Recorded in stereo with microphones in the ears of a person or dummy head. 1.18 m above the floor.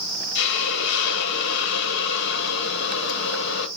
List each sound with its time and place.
0.3 s a hiss: 70° left (ahead or behind), 0.9 m